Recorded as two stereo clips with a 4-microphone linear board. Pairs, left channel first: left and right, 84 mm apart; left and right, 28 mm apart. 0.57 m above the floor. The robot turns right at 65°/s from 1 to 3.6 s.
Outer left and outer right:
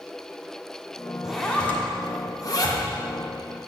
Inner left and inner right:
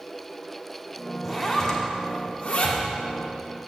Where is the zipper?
5° right (ahead or behind), 1.2 m; by 2.8 s 50° left (ahead or behind), 1.2 m.